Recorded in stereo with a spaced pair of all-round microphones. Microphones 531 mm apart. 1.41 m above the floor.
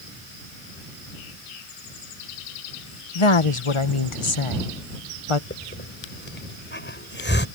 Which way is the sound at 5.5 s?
20° left (ahead or behind).